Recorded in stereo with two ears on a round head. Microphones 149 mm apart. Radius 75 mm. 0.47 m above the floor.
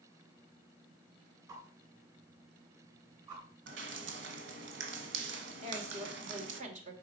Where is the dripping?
75° right (ahead or behind), 1.3 m.